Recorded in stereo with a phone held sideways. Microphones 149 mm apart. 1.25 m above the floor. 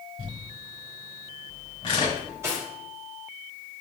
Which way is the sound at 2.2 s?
20° right (ahead or behind).